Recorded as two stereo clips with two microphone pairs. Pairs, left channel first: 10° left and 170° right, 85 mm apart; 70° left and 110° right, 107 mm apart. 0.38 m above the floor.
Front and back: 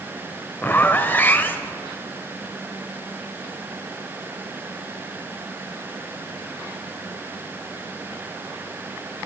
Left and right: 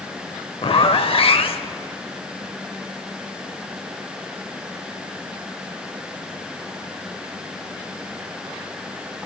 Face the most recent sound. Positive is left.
turn(degrees=70)